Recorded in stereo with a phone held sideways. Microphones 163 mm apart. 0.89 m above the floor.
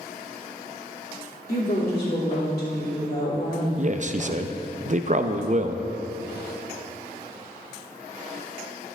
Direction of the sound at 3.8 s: 50° right (ahead or behind).